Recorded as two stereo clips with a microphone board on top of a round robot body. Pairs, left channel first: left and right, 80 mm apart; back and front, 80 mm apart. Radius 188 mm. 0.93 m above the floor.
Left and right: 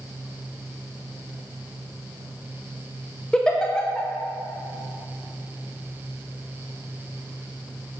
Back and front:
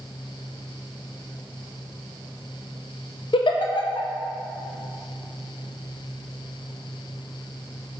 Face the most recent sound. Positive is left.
turn(degrees=170)